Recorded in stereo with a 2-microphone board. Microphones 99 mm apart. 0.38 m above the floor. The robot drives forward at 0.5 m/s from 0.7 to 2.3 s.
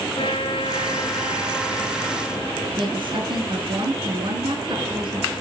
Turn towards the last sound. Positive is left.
turn(degrees=-60)  # may be behind; listen again after turning